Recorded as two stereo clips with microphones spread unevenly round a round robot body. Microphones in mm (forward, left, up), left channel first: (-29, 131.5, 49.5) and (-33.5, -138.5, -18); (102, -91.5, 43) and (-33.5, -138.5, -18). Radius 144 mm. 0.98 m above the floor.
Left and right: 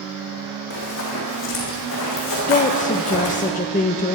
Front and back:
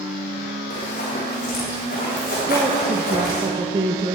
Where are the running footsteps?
45° left, 3 m; by 3.5 s 50° left, 5 m.